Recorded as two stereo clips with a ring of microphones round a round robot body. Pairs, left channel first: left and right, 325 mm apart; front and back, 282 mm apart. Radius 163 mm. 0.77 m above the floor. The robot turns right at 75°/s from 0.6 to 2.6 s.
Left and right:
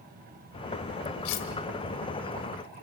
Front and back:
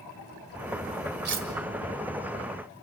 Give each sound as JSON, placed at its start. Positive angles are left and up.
{"t": 1.2, "sound": "cutlery clinking", "azimuth_deg": 125, "distance_m": 2.0}